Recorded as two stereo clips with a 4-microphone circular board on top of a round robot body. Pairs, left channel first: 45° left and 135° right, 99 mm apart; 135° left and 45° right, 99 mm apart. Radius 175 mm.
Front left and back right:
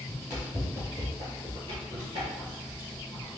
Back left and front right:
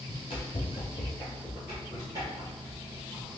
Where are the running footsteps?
135° left, 1.1 m; by 3.3 s 90° right, 1.6 m.